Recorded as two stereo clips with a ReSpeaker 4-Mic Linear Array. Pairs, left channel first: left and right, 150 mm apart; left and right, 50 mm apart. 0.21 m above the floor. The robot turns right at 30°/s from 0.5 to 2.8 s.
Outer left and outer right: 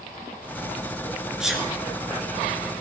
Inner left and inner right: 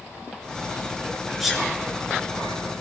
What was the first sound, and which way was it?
A sneeze, 5° right (ahead or behind).